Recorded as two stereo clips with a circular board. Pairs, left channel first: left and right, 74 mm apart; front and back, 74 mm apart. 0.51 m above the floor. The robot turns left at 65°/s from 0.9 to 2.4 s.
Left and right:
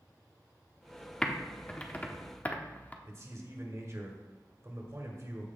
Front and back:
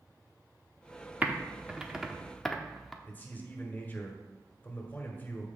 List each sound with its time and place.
1.2 s typing on a keyboard: 160° left, 0.9 m; by 2.9 s 80° left, 0.9 m
3.0 s a man speaking: 55° right, 1.9 m